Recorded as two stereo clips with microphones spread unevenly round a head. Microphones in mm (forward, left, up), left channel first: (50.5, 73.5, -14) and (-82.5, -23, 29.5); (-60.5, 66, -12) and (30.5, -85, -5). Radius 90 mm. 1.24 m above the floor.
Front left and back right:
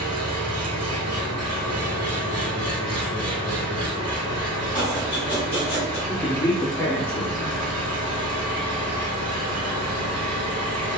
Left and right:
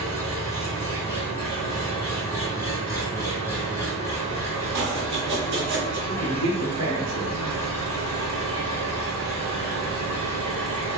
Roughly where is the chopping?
Ahead right.